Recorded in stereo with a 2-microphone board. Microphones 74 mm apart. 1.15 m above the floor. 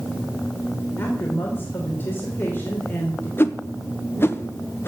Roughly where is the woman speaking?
Left.